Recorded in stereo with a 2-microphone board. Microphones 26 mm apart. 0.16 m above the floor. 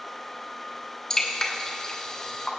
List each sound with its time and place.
1.1 s dripping: 25° left (ahead or behind), 1.6 m